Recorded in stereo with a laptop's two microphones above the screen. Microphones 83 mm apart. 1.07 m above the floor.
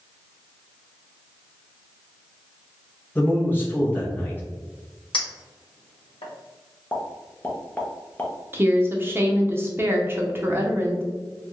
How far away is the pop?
About 0.6 m.